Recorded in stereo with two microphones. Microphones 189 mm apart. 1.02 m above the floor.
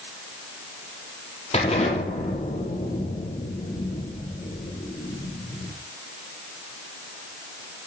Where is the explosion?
35° left (ahead or behind), 5 m.